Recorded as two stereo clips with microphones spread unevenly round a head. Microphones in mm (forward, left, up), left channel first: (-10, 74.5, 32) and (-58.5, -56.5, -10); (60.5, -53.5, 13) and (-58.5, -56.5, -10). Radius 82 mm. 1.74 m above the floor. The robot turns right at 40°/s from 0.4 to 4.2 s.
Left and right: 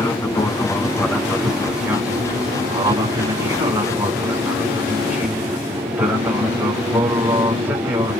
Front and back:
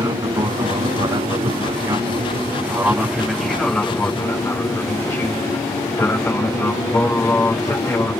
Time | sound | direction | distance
0.0 | an aircraft | 140° left | ?